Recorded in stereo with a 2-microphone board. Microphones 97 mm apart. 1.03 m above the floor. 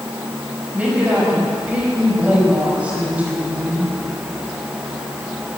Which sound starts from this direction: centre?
A woman speaking, at 0.7 s.